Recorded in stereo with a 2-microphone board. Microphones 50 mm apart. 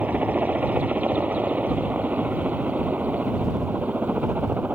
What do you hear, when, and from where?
0.0 s a helicopter: 30° right (ahead or behind)